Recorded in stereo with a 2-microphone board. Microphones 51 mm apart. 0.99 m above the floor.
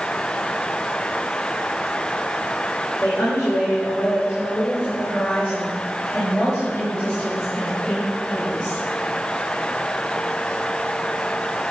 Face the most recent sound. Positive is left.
turn(degrees=20)  # may be behind; listen again after turning